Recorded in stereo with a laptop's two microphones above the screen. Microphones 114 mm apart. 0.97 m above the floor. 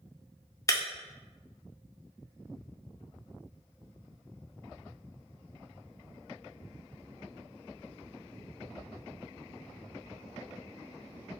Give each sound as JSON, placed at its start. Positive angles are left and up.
{"t": 0.7, "sound": "breaking glass", "side_deg": 25, "distance_m": 0.6}